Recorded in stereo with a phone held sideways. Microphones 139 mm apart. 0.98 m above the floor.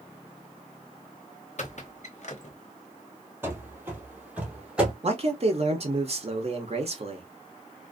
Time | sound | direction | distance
1.6 | a squeak | 55° left (ahead or behind) | 0.7 m
3.4 | running footsteps | 15° right (ahead or behind) | 1.0 m
5.0 | a man speaking | 45° right (ahead or behind) | 0.7 m